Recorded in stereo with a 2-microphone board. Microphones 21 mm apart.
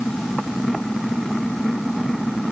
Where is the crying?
No crying in this recording.